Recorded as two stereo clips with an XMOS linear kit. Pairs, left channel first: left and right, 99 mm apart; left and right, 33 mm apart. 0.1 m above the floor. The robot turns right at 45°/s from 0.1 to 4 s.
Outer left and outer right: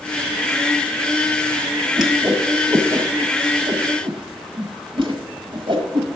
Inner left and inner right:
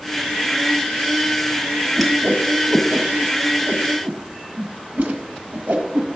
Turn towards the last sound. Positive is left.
turn(degrees=-55)  # may be behind; listen again after turning